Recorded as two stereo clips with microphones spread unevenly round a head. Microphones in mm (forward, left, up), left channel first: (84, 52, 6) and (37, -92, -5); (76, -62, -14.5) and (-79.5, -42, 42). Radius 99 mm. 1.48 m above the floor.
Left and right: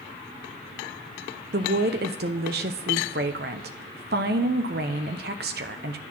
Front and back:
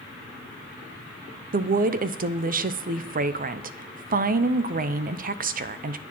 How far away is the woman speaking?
About 0.7 m.